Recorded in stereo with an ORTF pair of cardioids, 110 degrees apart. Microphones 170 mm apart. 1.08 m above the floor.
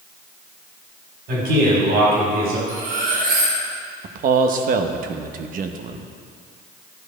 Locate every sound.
1.3 s a man speaking: 70° right, 4 m
2.7 s cutlery clinking: 60° right, 3.5 m
4.0 s a man speaking: 55° right, 0.9 m